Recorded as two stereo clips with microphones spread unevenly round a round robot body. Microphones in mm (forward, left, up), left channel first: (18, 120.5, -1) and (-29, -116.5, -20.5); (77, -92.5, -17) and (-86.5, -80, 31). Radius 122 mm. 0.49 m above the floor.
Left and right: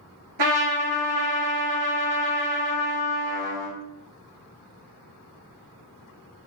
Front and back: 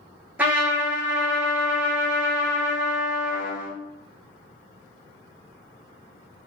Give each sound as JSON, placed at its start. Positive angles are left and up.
{"t": 0.4, "sound": "a trumpet", "azimuth_deg": -105, "distance_m": 2.5}